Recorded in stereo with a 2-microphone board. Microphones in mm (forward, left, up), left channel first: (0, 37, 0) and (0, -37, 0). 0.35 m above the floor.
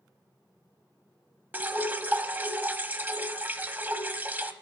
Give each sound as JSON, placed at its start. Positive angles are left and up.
{"t": 1.5, "sound": "dripping", "side_deg": -25, "distance_m": 0.9}